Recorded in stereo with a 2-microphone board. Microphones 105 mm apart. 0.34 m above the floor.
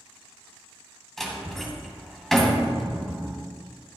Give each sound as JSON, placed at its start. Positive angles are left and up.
{"t": 1.2, "sound": "a door slam", "side_deg": 5, "distance_m": 2.0}